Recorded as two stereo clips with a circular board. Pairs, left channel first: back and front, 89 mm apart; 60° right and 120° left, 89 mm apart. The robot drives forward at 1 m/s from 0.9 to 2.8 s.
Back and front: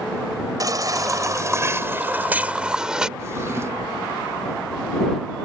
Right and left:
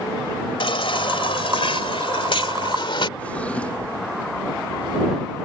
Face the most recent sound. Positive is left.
turn(degrees=-5)